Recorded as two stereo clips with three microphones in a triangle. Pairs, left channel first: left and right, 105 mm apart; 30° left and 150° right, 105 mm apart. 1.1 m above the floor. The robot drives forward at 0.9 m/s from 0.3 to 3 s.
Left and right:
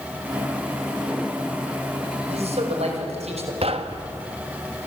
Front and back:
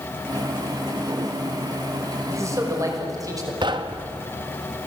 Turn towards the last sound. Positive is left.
turn(degrees=-110)